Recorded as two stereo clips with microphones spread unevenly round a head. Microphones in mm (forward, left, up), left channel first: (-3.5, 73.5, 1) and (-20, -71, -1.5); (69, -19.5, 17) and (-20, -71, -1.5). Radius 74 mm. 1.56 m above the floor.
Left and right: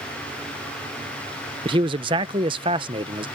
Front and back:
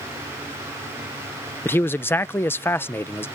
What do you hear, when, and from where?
1.6 s a man speaking: 35° right